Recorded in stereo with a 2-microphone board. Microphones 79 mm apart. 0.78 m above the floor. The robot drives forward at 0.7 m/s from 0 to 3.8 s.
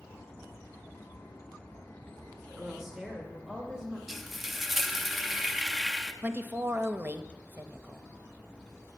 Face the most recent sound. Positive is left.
turn(degrees=-25)  # may be behind; listen again after turning